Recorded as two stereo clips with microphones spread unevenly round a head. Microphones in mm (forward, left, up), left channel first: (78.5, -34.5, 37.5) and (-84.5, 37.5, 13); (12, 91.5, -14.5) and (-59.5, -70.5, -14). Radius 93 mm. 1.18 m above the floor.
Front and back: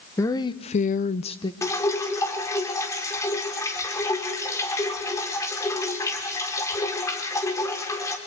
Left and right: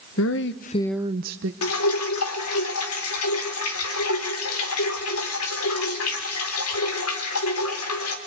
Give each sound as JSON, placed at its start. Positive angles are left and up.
{"t": 0.2, "sound": "a woman speaking", "azimuth_deg": 55, "distance_m": 1.2}
{"t": 1.6, "sound": "dripping", "azimuth_deg": 50, "distance_m": 2.5}